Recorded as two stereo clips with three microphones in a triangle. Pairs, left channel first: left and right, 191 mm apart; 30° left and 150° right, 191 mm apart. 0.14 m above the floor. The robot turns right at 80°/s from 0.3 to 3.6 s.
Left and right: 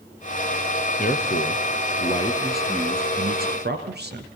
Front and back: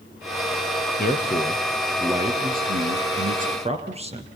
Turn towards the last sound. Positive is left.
turn(degrees=-100)